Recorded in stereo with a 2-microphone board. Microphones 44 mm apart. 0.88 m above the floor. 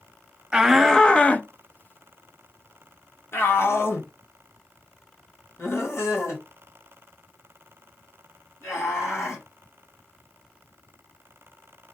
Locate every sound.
0.5 s a shout: 15° right (ahead or behind), 0.6 m; by 9.4 s 70° left (ahead or behind), 5.5 m